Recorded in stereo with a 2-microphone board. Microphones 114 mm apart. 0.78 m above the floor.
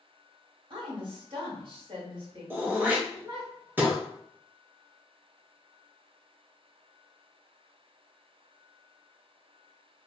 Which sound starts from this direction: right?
A woman speaking, at 0.7 s.